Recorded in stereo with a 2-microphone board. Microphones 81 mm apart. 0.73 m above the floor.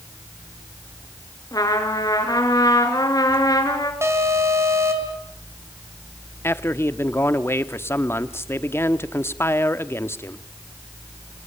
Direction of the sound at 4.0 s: 30° right (ahead or behind).